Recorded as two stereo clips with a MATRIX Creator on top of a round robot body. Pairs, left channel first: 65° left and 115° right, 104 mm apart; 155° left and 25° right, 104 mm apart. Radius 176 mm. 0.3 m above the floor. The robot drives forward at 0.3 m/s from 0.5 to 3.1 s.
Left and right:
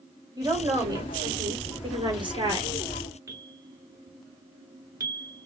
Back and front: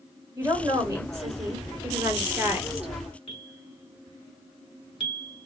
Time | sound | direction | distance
0.4 | a woman speaking | 75° right | 2 m
3.3 | a bell | 170° right | 1.1 m